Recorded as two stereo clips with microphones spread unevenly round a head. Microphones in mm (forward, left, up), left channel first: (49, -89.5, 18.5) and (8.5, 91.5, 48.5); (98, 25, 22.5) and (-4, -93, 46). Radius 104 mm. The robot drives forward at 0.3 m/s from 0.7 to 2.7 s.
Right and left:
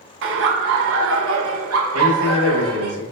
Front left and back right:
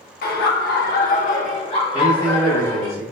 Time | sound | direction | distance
0.2 | laughter | 80° left | 0.6 m
1.9 | a man speaking | 135° left | 1.9 m